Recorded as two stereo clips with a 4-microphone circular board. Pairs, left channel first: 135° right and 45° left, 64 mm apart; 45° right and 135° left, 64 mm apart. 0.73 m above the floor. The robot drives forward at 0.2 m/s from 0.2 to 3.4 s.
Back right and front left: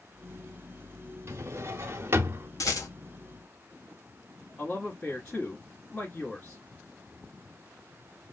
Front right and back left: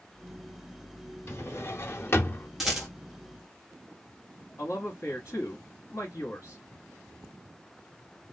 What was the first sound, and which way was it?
A drawer, straight ahead.